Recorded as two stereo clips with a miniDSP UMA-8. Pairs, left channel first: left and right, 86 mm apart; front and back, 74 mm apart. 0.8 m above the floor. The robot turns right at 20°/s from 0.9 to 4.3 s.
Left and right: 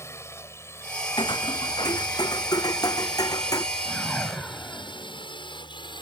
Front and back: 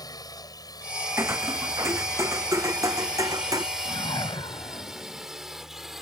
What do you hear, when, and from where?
0.0 s a drone: 30° left; by 6.0 s 95° left
1.2 s footsteps: 120° left; by 3.6 s 140° left
3.9 s a whoosh: straight ahead; by 5.3 s 10° left